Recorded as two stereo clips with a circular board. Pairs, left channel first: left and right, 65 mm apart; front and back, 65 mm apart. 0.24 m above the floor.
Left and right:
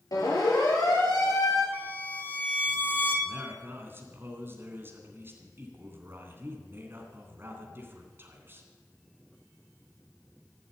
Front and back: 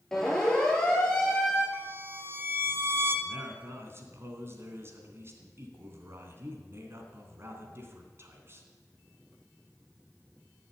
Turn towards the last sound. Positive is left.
turn(degrees=-140)